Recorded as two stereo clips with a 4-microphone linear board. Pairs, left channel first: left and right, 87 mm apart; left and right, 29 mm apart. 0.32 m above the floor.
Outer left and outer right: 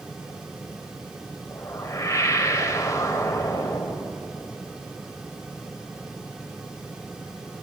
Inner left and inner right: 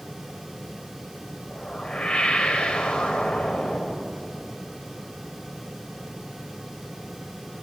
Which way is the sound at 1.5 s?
40° left (ahead or behind).